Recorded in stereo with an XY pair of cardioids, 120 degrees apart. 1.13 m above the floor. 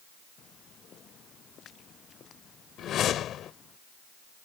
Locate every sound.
0.4 s footsteps: 50° left; by 3.8 s 45° left
2.8 s a whoosh: 60° left